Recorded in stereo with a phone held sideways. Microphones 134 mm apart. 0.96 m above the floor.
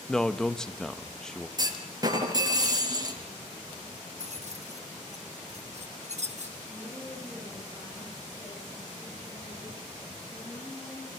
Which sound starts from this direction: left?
A woman speaking, at 6.7 s.